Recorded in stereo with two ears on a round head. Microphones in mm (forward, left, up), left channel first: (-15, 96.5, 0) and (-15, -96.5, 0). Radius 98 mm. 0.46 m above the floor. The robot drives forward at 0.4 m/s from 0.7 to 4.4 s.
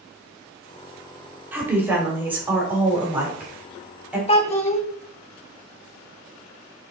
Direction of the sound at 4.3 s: 30° left (ahead or behind).